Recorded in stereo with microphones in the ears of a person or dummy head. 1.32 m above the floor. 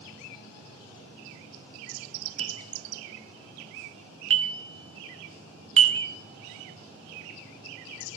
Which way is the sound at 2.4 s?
30° right (ahead or behind).